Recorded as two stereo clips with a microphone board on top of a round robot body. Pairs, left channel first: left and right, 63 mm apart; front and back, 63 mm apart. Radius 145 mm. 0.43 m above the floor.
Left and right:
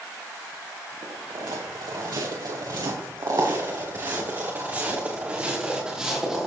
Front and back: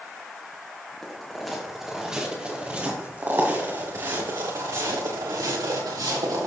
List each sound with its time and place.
1.0 s footsteps: 85° right, 4.5 m; by 6.5 s 170° right, 5 m